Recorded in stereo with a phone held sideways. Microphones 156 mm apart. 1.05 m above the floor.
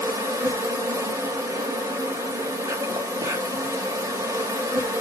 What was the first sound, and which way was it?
An insect, 20° right (ahead or behind).